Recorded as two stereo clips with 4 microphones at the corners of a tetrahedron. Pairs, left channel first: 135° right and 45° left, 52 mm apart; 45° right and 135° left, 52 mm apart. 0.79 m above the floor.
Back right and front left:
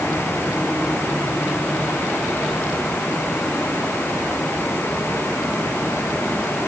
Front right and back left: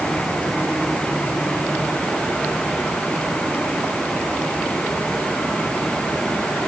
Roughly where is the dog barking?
I don't hear a dog barking.